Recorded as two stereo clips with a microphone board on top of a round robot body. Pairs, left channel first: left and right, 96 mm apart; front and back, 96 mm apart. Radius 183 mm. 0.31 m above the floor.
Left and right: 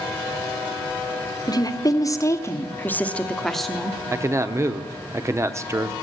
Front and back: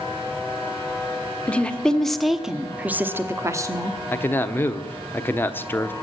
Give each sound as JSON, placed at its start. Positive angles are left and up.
{"t": 1.5, "sound": "a woman speaking", "azimuth_deg": 70, "distance_m": 1.6}
{"t": 4.1, "sound": "a man speaking", "azimuth_deg": -55, "distance_m": 1.2}